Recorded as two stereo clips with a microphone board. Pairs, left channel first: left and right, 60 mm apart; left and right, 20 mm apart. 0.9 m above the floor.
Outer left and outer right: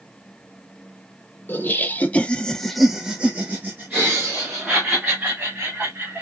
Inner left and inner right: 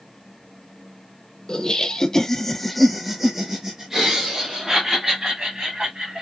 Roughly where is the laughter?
Left.